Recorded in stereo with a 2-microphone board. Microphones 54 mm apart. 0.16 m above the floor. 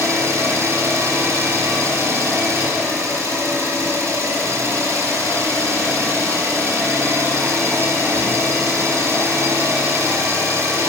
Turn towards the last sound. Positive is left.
turn(degrees=-65)  # may be behind; listen again after turning